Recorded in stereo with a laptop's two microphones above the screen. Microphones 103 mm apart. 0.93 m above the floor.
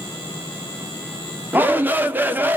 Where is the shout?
20° right (ahead or behind), 0.6 m.